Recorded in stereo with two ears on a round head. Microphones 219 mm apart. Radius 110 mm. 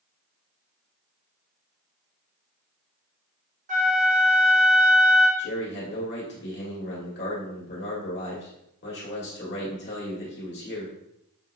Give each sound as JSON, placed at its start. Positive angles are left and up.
{"t": 3.7, "sound": "a flute", "side_deg": -35, "distance_m": 1.2}
{"t": 5.4, "sound": "a man speaking", "side_deg": 50, "distance_m": 1.7}